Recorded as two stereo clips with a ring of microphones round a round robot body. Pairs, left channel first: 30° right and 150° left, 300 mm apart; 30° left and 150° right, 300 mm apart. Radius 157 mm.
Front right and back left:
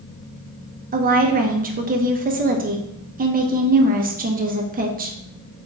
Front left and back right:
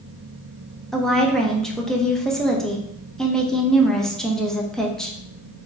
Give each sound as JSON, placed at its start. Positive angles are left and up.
{"t": 0.9, "sound": "a woman speaking", "azimuth_deg": 115, "distance_m": 0.8}